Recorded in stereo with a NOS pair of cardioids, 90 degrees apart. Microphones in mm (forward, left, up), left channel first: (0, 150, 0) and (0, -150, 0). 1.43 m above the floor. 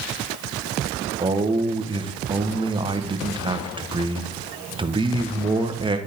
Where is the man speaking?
15° right, 1.2 m.